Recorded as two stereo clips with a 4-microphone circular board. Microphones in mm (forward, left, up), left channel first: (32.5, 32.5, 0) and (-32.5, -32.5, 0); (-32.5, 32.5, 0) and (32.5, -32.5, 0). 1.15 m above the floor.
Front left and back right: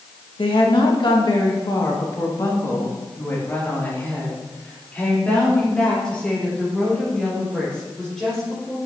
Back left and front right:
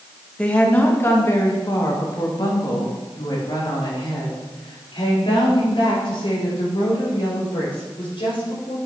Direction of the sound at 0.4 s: 60° left.